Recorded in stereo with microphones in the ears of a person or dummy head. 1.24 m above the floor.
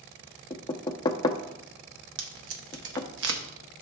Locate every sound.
0.5 s knocking: 25° left (ahead or behind), 0.6 m
2.2 s tape being pulled: 70° right (ahead or behind), 1.0 m